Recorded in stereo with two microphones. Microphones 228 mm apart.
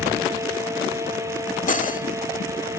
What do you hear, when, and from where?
1.7 s cutlery clinking: 35° left (ahead or behind), 1.3 m